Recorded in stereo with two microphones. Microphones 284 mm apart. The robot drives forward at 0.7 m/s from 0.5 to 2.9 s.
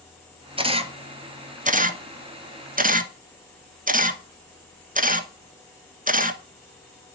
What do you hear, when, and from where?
0.6 s a camera shutter: 20° right (ahead or behind), 1.6 m; by 7.2 s 30° right (ahead or behind), 1.1 m